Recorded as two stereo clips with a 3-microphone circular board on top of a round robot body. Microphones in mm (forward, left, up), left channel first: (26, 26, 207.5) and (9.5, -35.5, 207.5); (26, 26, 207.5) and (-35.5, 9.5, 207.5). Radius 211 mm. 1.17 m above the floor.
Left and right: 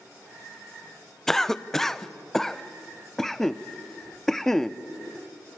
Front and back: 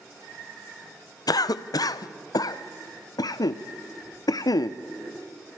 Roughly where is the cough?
Ahead.